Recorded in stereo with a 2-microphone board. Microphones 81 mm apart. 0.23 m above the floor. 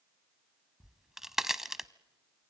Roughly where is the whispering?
I don't hear whispering.